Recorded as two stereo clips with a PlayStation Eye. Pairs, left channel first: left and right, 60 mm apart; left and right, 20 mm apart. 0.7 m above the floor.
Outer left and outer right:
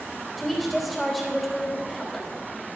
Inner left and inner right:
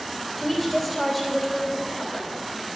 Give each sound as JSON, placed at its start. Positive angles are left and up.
{"t": 0.4, "sound": "a woman speaking", "side_deg": 0, "distance_m": 3.0}